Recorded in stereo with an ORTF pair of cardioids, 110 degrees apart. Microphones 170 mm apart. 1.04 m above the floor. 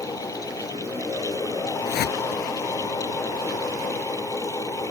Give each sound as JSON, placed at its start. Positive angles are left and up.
{"t": 0.0, "sound": "a fan", "azimuth_deg": 20}
{"t": 1.9, "sound": "a whoosh", "azimuth_deg": 70}